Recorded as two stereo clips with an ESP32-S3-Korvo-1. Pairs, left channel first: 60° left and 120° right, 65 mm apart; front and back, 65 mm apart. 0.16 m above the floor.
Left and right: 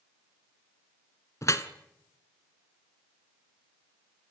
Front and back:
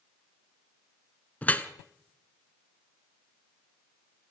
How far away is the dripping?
About 1.2 m.